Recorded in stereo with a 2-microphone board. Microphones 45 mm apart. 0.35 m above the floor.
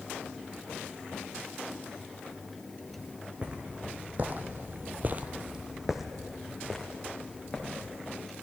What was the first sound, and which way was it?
Footsteps, 25° right (ahead or behind).